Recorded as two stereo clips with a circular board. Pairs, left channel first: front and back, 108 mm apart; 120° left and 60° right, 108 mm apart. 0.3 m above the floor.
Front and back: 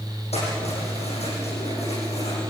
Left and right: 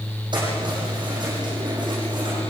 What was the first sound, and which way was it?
Keys jangling, 15° right.